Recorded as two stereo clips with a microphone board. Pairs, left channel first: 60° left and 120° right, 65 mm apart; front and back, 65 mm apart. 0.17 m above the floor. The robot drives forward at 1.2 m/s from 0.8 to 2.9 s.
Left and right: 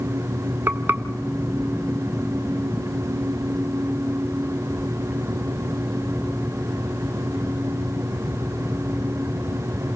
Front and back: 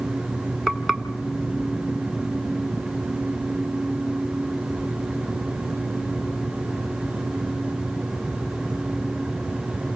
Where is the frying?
80° right, 1.5 m; by 1.0 s 95° right, 1.5 m.